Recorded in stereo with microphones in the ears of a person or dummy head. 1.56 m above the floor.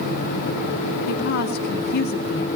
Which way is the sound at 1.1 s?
55° left (ahead or behind).